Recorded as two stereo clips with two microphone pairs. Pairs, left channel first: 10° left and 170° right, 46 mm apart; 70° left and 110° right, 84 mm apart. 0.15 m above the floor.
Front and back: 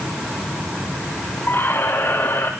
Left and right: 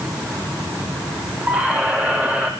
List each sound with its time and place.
1.5 s a squeak: 40° right, 2.5 m